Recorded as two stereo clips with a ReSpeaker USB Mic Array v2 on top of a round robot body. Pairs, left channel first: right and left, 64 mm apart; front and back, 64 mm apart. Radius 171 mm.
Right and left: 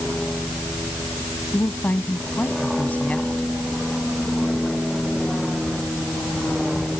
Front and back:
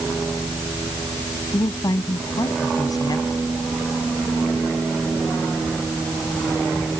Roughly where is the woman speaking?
Ahead right.